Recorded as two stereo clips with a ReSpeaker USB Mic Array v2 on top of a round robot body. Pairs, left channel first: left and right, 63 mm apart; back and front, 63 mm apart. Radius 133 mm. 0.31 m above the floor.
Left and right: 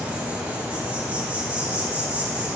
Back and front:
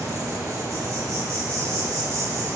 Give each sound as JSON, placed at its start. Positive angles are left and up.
{"t": 0.0, "sound": "an insect", "azimuth_deg": -20, "distance_m": 3.0}